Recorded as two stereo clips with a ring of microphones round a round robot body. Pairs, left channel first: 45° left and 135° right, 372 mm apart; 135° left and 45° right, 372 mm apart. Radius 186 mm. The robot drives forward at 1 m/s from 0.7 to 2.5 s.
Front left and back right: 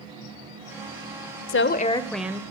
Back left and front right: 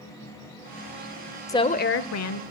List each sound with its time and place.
1.5 s a woman speaking: 60° left, 0.9 m; by 2.4 s 145° left, 1.1 m